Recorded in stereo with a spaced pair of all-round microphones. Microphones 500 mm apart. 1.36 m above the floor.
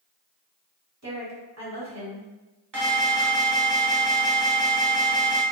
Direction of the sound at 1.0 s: 30° right (ahead or behind).